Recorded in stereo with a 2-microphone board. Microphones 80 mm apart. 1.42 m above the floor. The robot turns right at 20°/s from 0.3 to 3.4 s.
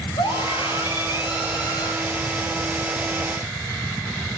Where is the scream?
95° left, 8.5 m; by 1.9 s 125° left, 8.5 m.